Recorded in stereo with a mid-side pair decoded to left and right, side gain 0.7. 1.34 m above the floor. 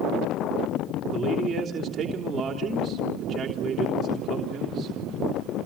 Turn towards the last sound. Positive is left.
turn(degrees=-15)